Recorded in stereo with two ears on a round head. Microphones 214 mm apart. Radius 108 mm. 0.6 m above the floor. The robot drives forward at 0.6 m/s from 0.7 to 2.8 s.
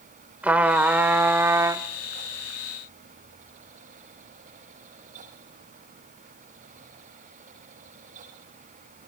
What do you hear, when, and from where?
0.4 s a trumpet: 5° right (ahead or behind), 1.2 m; by 1.8 s 15° right (ahead or behind), 0.6 m